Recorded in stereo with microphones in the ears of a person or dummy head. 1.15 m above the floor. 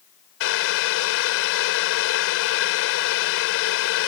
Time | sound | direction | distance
0.4 | boiling | 75° left (ahead or behind) | ?